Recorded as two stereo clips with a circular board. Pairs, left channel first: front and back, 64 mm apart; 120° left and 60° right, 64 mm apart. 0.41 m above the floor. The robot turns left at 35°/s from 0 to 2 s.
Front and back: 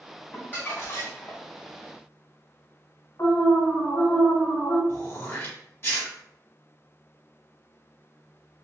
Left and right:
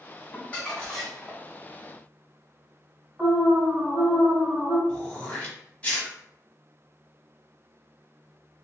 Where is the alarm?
25° left, 1.6 m.